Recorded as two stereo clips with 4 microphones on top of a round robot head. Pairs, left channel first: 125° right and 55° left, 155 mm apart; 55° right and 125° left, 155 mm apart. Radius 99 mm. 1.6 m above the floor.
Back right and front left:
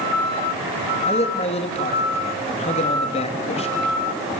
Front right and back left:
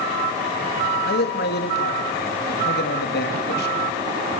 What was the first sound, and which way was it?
A man speaking, 75° right.